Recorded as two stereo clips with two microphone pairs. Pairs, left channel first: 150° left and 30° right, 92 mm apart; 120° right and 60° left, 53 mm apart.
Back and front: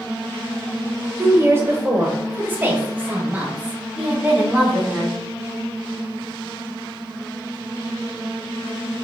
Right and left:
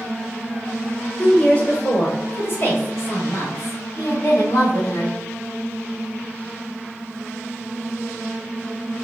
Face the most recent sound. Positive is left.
turn(degrees=-110)